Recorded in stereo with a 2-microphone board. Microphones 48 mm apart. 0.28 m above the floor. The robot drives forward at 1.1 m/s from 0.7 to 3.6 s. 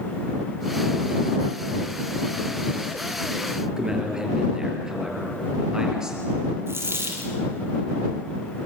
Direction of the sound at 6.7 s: 60° right (ahead or behind).